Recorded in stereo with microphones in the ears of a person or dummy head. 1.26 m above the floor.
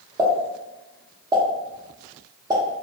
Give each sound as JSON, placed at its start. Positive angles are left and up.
{"t": 0.2, "sound": "a pop", "side_deg": -25, "distance_m": 0.7}